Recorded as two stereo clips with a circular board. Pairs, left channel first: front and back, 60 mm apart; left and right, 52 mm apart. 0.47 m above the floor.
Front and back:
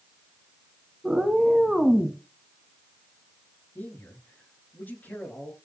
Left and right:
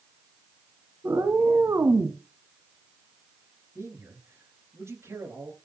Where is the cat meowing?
100° right, 2 m; by 2.2 s 85° right, 1.7 m.